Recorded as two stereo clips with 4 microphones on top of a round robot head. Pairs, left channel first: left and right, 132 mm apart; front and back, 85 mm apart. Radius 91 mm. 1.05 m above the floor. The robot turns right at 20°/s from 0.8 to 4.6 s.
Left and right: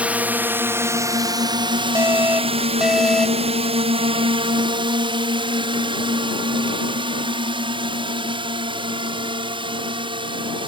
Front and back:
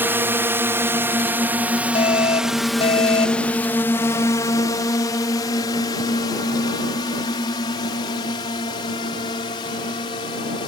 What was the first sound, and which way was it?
A drone, 155° right.